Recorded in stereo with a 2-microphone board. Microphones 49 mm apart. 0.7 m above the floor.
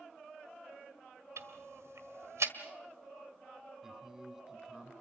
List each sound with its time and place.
1.4 s ticking: 85° right, 1.7 m
3.8 s a man speaking: 10° right (ahead or behind), 5.5 m